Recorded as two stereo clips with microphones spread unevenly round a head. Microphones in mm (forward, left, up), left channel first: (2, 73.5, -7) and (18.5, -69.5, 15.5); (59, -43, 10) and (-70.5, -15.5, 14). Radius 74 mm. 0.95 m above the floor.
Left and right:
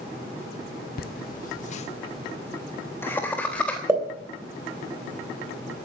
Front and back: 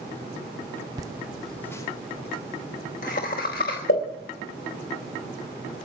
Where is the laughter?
105° left, 0.7 m; by 3.8 s 15° left, 1.5 m.